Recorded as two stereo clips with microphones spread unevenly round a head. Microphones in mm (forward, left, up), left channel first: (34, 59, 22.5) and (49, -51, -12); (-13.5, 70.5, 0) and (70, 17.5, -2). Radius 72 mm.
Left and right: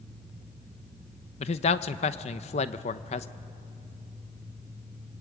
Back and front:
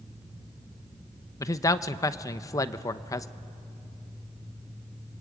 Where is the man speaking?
115° left, 0.7 m.